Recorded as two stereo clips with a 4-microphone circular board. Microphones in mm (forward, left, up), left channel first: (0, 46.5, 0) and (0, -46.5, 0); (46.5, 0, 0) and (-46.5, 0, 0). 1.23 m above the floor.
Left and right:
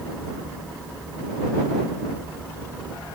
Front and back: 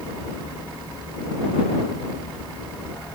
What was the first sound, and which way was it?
Only background noise.